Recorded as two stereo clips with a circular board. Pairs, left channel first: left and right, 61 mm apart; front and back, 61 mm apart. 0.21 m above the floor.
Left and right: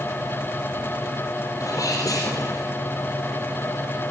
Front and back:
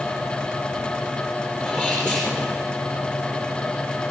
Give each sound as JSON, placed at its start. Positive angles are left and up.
{"t": 1.6, "sound": "a sneeze", "azimuth_deg": 100, "distance_m": 4.5}